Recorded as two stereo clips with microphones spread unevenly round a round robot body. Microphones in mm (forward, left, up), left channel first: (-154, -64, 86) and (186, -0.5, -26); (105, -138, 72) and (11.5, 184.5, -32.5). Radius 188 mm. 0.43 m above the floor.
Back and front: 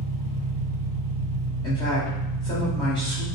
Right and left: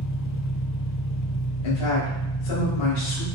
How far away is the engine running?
About 0.7 m.